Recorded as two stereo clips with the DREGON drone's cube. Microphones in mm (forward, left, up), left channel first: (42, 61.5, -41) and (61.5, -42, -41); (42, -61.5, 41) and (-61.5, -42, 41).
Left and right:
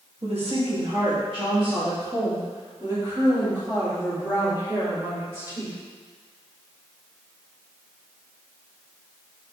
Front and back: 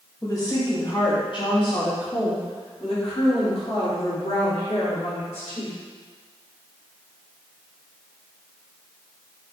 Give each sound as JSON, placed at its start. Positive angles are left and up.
{"t": 0.2, "sound": "a woman speaking", "azimuth_deg": -70, "distance_m": 2.0}